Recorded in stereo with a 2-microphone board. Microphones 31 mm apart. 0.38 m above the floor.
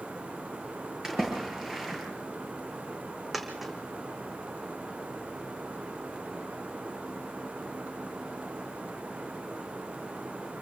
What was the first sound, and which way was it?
A splash, 15° right (ahead or behind).